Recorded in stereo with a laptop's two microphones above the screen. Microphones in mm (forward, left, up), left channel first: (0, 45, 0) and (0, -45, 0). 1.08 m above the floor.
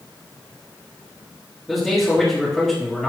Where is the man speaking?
5° left (ahead or behind), 1.9 m.